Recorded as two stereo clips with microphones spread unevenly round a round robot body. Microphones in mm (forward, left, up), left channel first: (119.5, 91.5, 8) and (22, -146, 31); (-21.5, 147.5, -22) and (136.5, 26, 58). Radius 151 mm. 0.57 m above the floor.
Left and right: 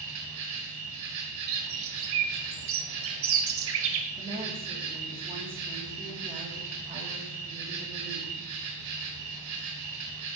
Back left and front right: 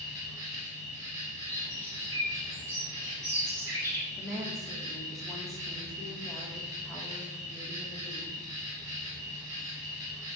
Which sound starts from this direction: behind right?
An insect, at 0.0 s.